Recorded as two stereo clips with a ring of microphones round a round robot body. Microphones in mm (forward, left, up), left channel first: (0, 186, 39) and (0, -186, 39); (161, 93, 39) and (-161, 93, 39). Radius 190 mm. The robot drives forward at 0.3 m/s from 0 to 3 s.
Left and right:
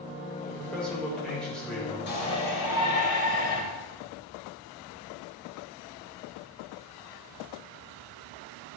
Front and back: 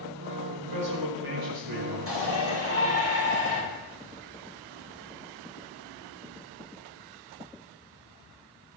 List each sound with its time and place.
0.5 s a man speaking: straight behind, 4 m
2.1 s a shout: 130° left, 3.5 m; by 3.6 s 135° left, 3.5 m